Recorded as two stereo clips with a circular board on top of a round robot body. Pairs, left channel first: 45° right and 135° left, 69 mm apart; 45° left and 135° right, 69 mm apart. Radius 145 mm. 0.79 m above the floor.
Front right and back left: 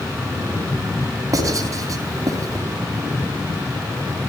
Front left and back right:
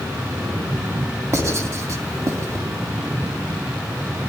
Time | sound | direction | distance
1.3 | writing | 175° left | 3.5 m